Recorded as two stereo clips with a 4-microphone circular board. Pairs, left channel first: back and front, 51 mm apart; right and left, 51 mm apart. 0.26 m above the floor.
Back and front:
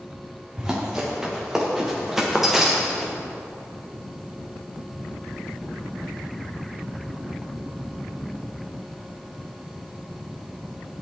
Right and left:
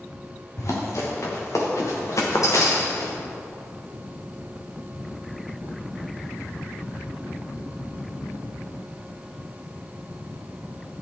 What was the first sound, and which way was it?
Running footsteps, 75° right.